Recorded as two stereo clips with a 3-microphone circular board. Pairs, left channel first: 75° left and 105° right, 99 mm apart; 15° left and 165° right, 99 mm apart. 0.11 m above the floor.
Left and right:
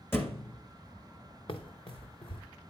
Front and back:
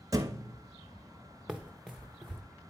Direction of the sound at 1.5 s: 110° left.